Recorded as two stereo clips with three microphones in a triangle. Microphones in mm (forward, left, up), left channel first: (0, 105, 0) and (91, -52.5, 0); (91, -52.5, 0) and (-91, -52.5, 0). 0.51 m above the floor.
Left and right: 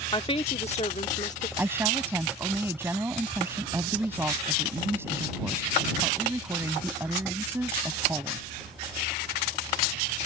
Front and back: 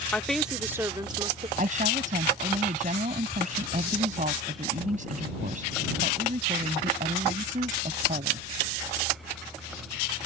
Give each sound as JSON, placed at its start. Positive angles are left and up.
{"t": 0.1, "sound": "a woman speaking", "azimuth_deg": 80}
{"t": 1.6, "sound": "a woman speaking", "azimuth_deg": -135}